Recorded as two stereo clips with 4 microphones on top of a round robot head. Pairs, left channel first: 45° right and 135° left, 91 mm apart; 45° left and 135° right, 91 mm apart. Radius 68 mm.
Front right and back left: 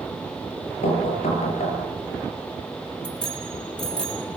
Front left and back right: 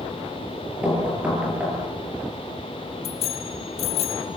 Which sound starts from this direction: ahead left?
A bicycle bell, at 3.0 s.